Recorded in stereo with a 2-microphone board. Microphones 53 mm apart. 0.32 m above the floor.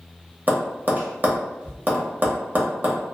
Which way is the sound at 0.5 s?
35° right (ahead or behind).